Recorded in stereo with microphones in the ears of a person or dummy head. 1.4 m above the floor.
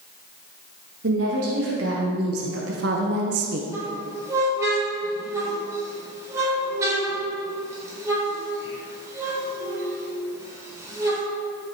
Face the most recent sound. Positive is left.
turn(degrees=-15)  # may be behind; listen again after turning